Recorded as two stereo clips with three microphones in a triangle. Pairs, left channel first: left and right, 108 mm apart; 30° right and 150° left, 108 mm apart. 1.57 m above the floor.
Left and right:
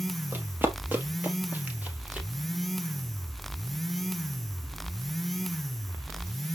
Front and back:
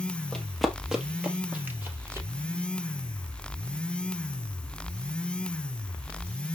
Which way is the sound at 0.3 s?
100° right.